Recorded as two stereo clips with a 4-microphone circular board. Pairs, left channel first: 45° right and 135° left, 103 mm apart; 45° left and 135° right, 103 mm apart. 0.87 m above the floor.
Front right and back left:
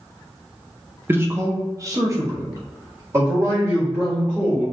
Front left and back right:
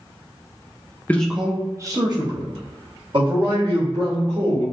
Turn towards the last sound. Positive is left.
turn(degrees=-160)